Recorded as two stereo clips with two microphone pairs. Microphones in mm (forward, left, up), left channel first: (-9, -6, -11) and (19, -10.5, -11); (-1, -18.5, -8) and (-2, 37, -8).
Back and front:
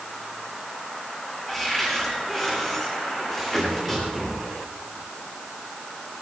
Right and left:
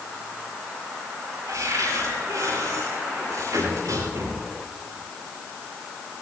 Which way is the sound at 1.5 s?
100° left.